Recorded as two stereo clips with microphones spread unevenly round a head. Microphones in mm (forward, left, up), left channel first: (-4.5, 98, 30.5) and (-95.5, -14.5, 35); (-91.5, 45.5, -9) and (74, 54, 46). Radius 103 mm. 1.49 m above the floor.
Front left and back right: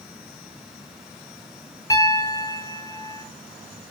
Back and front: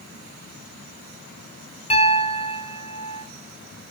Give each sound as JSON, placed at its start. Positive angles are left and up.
{"t": 1.9, "sound": "a piano", "azimuth_deg": 120, "distance_m": 0.8}